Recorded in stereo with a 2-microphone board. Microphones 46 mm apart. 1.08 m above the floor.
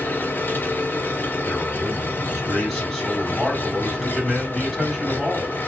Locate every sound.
0.0 s an engine running: 45° left (ahead or behind), 1.0 m
1.5 s a man speaking: 5° right (ahead or behind), 2.5 m